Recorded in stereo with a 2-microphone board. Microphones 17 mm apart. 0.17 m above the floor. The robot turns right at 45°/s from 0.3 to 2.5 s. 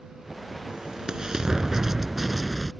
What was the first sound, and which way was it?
An explosion, 85° right.